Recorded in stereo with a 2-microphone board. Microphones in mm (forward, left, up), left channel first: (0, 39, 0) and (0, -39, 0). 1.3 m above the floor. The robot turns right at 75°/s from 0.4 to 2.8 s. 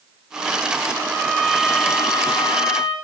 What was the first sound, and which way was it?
A violin, 30° right.